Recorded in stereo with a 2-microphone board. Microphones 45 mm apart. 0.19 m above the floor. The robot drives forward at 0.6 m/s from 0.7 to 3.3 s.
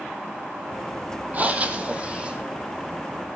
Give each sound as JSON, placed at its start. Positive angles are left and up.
{"t": 1.3, "sound": "breathing", "side_deg": -35, "distance_m": 1.3}